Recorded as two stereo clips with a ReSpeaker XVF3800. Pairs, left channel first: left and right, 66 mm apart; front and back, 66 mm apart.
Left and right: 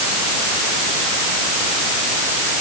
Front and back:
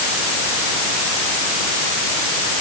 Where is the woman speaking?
I don't hear a woman speaking.